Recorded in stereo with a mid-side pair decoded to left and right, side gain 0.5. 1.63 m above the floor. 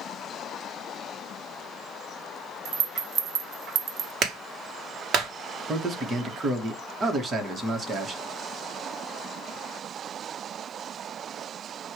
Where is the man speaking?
40° right, 1.5 m.